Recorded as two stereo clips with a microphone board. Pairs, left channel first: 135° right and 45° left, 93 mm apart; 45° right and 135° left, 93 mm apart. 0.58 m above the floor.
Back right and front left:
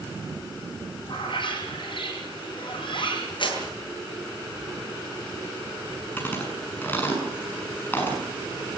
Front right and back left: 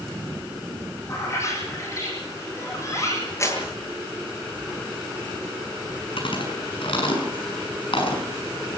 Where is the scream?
I don't hear a scream.